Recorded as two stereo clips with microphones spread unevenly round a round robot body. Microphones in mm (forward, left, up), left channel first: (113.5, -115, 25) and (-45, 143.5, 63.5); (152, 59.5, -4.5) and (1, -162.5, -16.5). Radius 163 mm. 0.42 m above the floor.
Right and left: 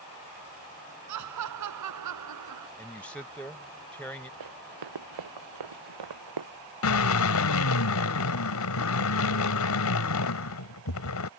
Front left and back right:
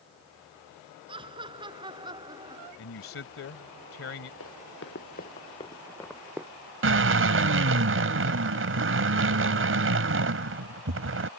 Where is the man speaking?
25° left.